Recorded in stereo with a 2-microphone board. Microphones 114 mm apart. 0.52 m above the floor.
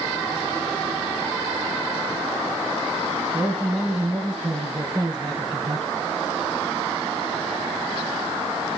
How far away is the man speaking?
About 4 m.